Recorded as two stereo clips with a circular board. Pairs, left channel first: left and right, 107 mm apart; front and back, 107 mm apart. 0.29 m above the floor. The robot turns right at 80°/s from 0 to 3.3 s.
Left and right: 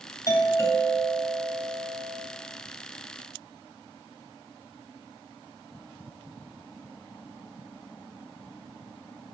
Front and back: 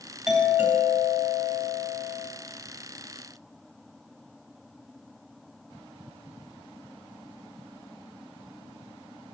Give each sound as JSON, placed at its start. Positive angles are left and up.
{"t": 0.3, "sound": "a doorbell", "azimuth_deg": 95, "distance_m": 2.0}